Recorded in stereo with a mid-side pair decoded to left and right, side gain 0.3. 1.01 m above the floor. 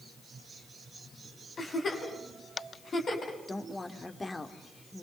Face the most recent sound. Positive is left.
turn(degrees=35)